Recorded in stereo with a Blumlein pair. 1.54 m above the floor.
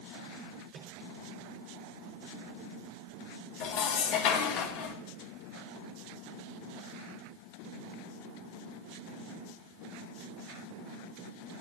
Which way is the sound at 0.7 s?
30° right.